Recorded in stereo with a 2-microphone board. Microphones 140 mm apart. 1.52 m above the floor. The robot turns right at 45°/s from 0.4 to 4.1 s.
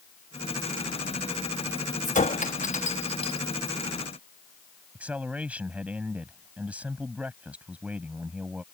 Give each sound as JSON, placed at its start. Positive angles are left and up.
{"t": 2.0, "sound": "a clink", "side_deg": 60}
{"t": 5.0, "sound": "a man speaking", "side_deg": -10}